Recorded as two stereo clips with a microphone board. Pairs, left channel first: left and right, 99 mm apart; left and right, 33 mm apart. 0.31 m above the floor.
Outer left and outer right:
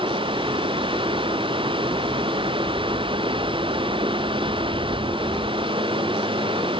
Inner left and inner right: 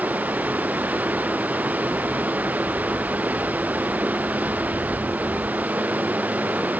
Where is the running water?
60° right (ahead or behind).